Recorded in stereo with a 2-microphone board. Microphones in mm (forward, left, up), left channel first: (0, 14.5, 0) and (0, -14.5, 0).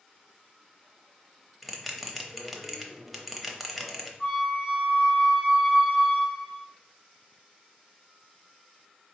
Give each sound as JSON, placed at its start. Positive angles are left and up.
{"t": 1.6, "sound": "a bell", "side_deg": 0, "distance_m": 0.7}
{"t": 4.2, "sound": "a flute", "side_deg": 20, "distance_m": 2.0}